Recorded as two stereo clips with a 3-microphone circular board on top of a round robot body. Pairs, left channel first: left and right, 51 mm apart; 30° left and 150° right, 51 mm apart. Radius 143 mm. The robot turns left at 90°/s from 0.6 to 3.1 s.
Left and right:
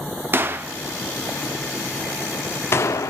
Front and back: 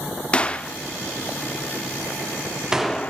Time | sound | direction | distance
0.3 | a gunshot | 40° right | 1.0 m